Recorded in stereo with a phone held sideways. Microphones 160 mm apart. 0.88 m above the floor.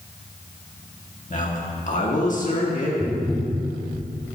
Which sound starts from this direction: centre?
Tapping, at 3.0 s.